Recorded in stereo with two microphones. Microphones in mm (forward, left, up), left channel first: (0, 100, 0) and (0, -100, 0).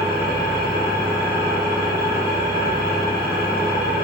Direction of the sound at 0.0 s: 50° right (ahead or behind).